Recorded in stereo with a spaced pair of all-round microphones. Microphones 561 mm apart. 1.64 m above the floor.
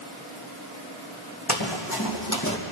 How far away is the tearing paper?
I don't hear tearing paper.